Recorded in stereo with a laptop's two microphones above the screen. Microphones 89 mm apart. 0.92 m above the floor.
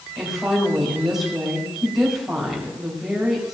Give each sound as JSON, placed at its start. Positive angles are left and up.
{"t": 0.2, "sound": "a woman speaking", "side_deg": -5, "distance_m": 3.5}